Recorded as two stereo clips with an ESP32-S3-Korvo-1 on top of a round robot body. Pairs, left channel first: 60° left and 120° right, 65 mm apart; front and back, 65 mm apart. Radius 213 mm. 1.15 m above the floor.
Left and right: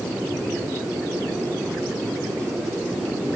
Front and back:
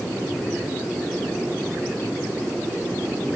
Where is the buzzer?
I don't hear a buzzer.